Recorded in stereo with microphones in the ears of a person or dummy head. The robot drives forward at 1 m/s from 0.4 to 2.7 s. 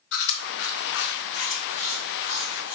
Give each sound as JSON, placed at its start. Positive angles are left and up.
{"t": 0.1, "sound": "chewing", "side_deg": 65, "distance_m": 0.9}